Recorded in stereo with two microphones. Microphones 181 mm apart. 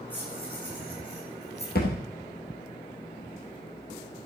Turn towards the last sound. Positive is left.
turn(degrees=65)  # may be behind; listen again after turning